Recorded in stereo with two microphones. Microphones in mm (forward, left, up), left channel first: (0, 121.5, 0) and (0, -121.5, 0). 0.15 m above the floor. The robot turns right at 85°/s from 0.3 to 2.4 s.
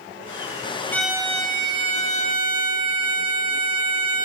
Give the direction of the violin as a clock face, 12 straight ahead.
6 o'clock.